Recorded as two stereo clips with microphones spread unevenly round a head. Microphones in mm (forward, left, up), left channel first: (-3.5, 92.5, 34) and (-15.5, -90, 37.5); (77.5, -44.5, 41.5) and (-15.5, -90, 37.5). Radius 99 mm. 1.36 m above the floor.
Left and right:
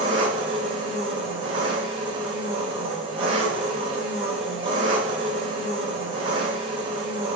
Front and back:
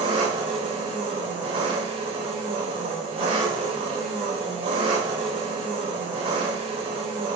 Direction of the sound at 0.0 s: 150° right.